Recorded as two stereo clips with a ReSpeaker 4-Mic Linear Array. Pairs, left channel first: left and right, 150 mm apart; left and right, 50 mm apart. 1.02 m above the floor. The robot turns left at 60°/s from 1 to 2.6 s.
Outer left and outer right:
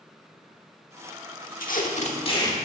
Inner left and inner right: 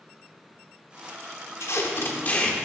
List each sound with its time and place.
1.6 s tape being pulled: 80° left, 1.2 m; by 2.6 s 25° left, 1.2 m